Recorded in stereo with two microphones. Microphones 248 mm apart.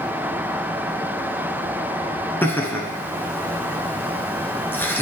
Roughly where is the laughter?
Centre.